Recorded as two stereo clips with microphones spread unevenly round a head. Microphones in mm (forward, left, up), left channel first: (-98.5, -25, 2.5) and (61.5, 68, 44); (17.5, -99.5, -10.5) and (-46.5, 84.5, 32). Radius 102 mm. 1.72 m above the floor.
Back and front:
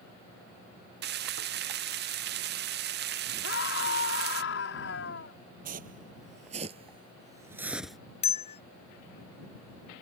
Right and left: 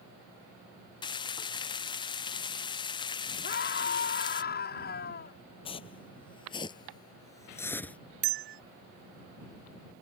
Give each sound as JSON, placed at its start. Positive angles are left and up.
{"t": 1.0, "sound": "frying", "azimuth_deg": 0}
{"t": 3.4, "sound": "a scream", "azimuth_deg": -115}
{"t": 5.7, "sound": "footsteps", "azimuth_deg": 0}
{"t": 8.2, "sound": "a bell", "azimuth_deg": 150}